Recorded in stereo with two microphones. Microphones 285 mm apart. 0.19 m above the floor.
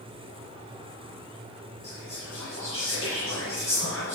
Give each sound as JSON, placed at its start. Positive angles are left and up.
{"t": 1.8, "sound": "whispering", "side_deg": 55, "distance_m": 3.5}